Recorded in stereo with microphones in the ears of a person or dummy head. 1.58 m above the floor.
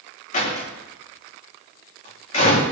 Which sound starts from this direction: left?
A door slam, at 0.3 s.